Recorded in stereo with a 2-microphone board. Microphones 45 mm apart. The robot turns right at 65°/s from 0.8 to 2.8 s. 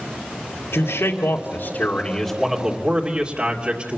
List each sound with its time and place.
0.7 s a man speaking: 75° left, 2.5 m; by 4.0 s 155° right, 2.5 m